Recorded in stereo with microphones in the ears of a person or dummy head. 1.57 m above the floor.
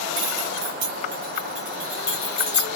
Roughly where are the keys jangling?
Right.